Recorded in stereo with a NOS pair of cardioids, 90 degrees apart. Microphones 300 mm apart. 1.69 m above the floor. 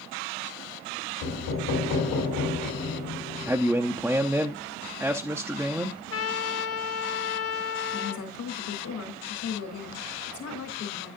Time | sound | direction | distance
1.2 | knocking | 70° left | 3.5 m
3.5 | a man speaking | 5° right | 0.6 m
5.8 | a trumpet | 50° left | 1.0 m
7.9 | a woman speaking | 65° left | 3.5 m